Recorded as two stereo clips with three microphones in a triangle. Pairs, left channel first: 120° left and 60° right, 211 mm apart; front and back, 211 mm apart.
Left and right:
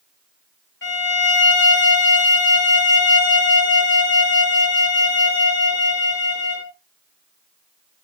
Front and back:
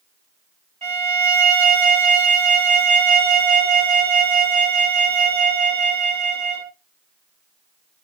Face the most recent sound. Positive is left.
turn(degrees=125)